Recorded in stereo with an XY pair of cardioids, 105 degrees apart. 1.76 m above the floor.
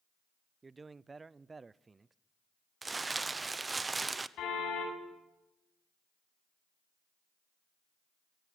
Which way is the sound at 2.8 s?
25° right.